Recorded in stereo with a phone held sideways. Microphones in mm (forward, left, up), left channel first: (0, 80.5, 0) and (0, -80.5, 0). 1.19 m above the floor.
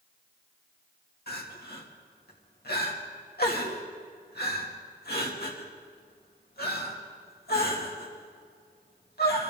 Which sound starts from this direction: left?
Crying, at 1.3 s.